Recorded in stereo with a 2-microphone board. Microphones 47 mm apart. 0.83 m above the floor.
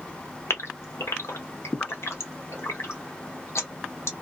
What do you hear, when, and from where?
0.5 s a gasp: 75° left (ahead or behind), 0.9 m